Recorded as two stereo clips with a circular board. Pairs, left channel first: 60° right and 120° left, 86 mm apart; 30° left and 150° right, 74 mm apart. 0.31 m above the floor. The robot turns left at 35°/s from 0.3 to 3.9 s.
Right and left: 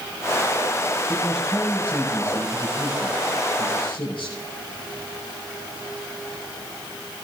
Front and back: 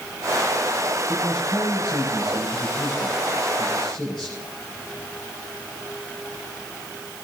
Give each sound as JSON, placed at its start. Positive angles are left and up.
{"t": 1.1, "sound": "a man speaking", "azimuth_deg": 45, "distance_m": 7.5}